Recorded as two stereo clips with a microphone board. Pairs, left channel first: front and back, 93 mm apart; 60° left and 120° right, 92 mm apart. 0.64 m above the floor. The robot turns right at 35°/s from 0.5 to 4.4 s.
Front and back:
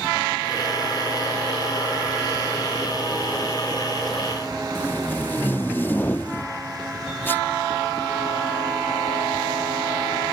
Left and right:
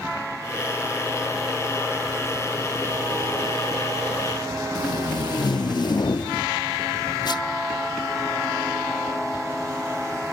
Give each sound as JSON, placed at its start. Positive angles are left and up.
{"t": 4.8, "sound": "tape being pulled", "azimuth_deg": 60}